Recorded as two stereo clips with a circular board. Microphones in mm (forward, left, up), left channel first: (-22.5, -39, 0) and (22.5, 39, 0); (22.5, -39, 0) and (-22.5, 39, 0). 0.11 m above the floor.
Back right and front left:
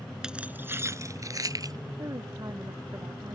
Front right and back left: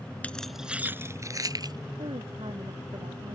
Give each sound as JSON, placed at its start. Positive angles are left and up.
{"t": 0.2, "sound": "keys jangling", "azimuth_deg": -10}
{"t": 2.0, "sound": "a woman speaking", "azimuth_deg": 110}